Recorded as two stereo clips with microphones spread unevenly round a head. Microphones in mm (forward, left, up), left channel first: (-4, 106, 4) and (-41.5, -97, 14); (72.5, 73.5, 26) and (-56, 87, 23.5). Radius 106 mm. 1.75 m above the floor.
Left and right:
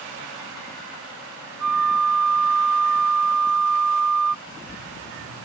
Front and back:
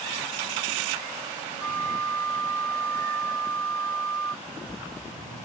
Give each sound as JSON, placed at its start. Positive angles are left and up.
{"t": 1.6, "sound": "a flute", "azimuth_deg": -90}
{"t": 4.5, "sound": "a splash", "azimuth_deg": 70}